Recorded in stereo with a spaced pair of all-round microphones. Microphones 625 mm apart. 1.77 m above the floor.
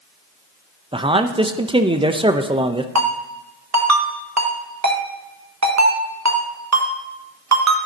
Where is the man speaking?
10° right (ahead or behind), 0.6 m.